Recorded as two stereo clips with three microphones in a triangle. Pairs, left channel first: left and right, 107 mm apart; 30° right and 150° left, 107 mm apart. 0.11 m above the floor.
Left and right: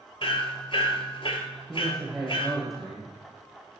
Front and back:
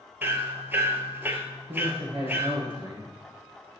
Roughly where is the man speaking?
Behind.